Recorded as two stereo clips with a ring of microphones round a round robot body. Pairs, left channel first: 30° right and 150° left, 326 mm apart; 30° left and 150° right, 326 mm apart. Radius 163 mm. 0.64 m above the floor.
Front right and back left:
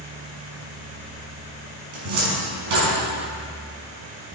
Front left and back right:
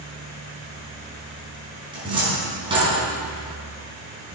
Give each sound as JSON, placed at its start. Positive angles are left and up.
{"t": 1.9, "sound": "a cupboard door", "azimuth_deg": 135, "distance_m": 5.0}